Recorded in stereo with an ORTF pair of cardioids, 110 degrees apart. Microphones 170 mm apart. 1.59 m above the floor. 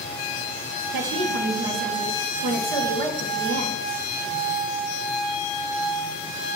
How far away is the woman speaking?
About 1.9 m.